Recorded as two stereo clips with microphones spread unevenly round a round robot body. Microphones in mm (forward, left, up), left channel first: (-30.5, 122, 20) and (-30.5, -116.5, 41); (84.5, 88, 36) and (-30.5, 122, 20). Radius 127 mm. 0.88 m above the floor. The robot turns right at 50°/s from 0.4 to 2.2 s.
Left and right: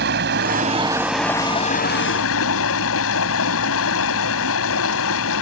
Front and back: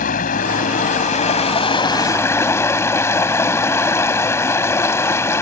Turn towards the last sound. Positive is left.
turn(degrees=50)